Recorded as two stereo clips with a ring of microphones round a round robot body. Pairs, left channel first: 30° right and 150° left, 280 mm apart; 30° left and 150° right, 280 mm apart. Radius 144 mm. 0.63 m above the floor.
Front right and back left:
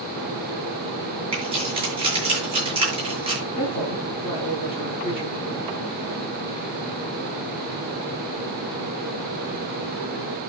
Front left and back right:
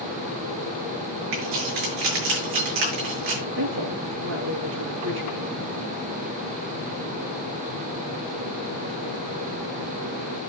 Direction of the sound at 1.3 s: 140° right.